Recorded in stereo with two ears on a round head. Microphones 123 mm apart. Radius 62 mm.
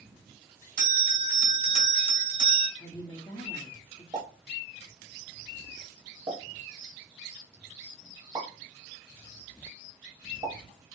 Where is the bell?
75° right (ahead or behind), 2 m.